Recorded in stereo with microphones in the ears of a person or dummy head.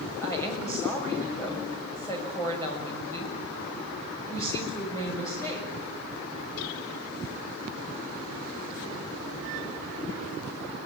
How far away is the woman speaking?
About 6.5 m.